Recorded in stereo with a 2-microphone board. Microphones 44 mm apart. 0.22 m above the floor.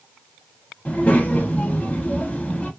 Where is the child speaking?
35° left (ahead or behind), 0.6 m.